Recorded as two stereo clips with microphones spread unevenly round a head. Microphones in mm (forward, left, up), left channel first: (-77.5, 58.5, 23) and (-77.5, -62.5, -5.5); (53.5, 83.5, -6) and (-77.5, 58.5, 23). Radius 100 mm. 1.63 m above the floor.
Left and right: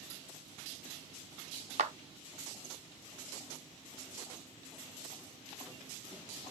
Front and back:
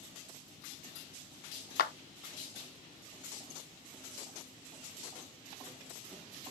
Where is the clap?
30° right, 0.7 m.